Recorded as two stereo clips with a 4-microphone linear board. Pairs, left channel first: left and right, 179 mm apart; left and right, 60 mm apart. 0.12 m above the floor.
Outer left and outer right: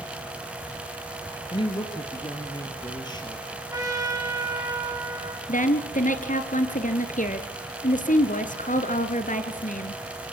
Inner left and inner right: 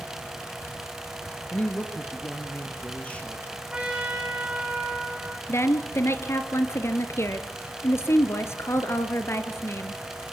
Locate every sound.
1.5 s a woman speaking: 30° left (ahead or behind), 2.5 m; by 3.6 s 25° left (ahead or behind), 4 m
3.7 s a trumpet: 20° right (ahead or behind), 4 m
5.5 s a woman speaking: 45° left (ahead or behind), 1.9 m